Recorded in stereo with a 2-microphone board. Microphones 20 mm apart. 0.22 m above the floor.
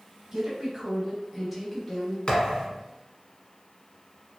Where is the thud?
50° left (ahead or behind), 1.0 m.